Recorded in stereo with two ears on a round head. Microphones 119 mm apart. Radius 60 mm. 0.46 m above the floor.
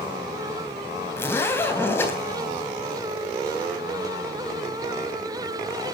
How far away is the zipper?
About 3.5 m.